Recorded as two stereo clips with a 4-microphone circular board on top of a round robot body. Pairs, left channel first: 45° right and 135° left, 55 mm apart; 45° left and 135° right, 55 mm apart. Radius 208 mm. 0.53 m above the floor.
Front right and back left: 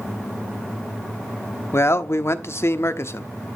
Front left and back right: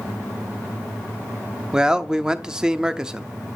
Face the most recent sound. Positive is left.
turn(degrees=-60)